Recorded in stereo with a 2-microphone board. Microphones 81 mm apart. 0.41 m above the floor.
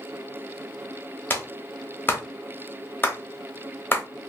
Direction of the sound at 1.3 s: 25° left (ahead or behind).